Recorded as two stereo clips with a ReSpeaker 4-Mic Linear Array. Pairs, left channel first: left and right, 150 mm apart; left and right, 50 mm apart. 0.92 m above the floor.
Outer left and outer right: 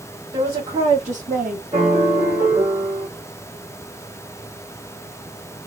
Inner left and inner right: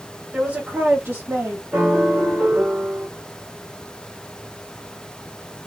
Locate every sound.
0.3 s a woman speaking: 35° right (ahead or behind), 1.7 m; by 1.6 s 65° right (ahead or behind), 1.4 m
1.7 s a piano: 35° right (ahead or behind), 1.6 m